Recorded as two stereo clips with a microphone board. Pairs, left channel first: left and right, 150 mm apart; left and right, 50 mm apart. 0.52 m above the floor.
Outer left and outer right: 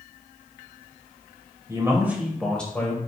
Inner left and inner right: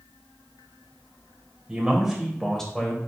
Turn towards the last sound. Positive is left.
turn(degrees=20)  # may be behind; listen again after turning